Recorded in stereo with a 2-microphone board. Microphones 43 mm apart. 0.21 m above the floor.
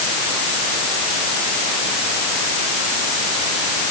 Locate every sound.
Only background noise.